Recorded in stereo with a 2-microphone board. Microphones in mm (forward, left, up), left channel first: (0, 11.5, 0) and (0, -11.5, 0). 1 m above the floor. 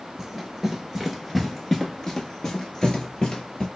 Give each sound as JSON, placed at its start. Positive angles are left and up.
{"t": 0.2, "sound": "running footsteps", "side_deg": -15, "distance_m": 1.1}